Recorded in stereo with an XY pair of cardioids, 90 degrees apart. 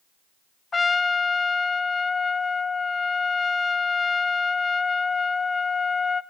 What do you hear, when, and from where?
0.7 s a trumpet: 35° left, 0.7 m